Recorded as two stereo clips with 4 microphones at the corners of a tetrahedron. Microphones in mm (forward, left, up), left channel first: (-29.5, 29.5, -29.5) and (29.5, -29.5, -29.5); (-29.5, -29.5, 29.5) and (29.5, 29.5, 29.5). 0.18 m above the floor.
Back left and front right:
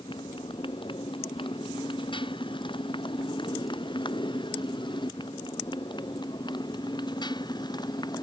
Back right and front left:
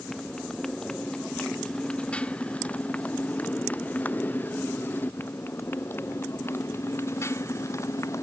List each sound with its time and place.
0.0 s a motorcycle: 140° left; by 8.2 s 170° left